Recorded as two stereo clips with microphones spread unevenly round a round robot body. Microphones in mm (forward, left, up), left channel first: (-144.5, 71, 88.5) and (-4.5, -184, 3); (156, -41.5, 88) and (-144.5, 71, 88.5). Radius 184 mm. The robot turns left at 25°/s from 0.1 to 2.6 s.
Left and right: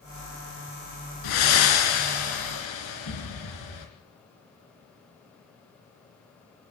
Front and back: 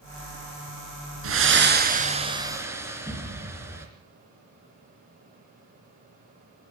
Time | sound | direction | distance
1.2 | breathing | 110° left | 3.5 m